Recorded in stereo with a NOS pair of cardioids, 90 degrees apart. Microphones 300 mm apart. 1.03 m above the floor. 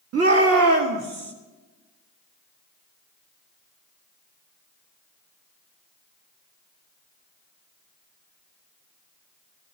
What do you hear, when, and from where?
0.1 s a shout: 55° right, 1.7 m; by 1.3 s 40° right, 2.5 m